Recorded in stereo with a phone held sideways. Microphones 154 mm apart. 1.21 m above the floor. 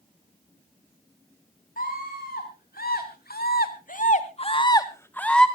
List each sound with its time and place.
1.8 s a scream: 70° left (ahead or behind), 4.5 m; by 5.5 s 5° left (ahead or behind), 2.5 m